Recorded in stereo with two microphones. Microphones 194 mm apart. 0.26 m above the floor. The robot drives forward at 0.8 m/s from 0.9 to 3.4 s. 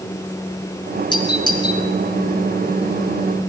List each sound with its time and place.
1.1 s a doorbell: 25° left (ahead or behind), 5 m; by 1.8 s 20° left (ahead or behind), 5.5 m